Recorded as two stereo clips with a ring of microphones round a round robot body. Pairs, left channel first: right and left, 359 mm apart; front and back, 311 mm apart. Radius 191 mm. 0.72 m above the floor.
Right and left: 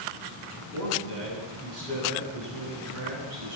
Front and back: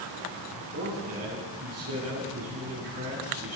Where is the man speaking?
135° left, 8.5 m.